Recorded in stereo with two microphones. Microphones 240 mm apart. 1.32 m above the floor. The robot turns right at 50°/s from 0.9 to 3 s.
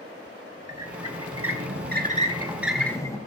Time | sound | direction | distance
0.7 | a squeak | 90° right | 1.9 m